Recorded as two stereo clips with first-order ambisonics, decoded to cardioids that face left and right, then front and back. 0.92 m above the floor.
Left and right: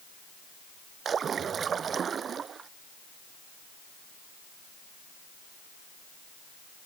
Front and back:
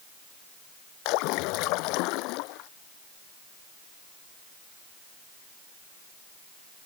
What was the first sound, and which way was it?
A splash, 25° right.